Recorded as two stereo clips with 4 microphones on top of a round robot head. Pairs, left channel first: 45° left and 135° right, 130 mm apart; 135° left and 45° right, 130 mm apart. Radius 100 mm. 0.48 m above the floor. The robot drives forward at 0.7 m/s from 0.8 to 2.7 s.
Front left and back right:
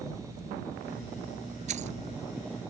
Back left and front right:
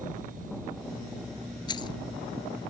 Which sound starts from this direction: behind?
Keys jangling, at 1.7 s.